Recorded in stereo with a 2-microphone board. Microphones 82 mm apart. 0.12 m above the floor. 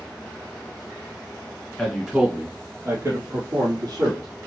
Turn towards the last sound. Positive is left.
turn(degrees=-50)  # may be behind; listen again after turning